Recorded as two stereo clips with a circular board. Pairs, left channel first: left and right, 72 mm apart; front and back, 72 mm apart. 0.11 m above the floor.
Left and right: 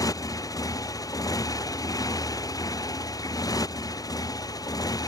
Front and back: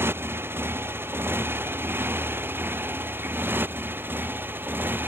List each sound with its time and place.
0.0 s a motorcycle: 125° left; by 5.1 s 120° left